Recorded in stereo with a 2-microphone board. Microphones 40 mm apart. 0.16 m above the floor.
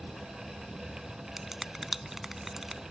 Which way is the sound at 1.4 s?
5° right (ahead or behind).